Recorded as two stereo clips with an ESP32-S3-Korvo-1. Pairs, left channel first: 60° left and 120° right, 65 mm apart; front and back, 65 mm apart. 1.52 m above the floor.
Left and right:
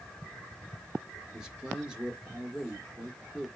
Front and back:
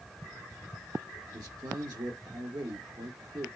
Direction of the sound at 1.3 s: 160° left.